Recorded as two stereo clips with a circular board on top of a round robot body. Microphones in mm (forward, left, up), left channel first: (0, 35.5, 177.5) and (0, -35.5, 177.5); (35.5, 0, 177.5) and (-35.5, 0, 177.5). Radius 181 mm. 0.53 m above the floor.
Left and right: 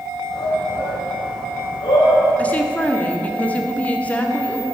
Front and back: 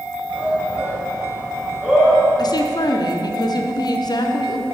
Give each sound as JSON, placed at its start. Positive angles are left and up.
{"t": 0.3, "sound": "a shout", "azimuth_deg": 100, "distance_m": 3.0}
{"t": 2.4, "sound": "a woman speaking", "azimuth_deg": 20, "distance_m": 1.4}